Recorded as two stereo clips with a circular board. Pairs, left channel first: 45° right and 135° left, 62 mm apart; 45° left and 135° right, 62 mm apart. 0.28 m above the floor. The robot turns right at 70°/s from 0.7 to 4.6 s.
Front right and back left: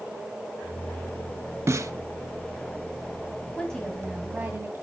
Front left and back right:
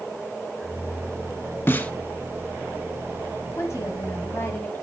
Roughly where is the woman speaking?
Ahead.